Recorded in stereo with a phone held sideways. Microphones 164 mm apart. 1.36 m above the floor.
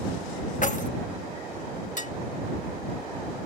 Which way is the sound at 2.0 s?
50° left (ahead or behind).